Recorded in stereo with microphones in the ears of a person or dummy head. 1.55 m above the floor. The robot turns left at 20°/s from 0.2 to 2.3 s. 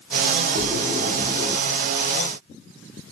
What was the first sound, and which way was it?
A splash, 35° right (ahead or behind).